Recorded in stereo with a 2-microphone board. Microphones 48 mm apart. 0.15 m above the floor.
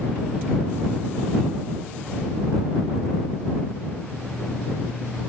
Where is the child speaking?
No child speaking in this recording.